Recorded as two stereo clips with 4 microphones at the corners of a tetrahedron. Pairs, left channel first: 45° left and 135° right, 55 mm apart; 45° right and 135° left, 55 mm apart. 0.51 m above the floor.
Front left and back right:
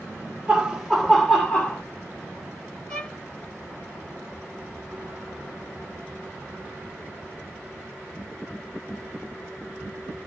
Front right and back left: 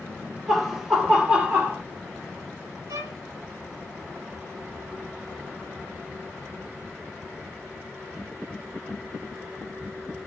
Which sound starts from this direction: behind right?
Laughter, at 0.5 s.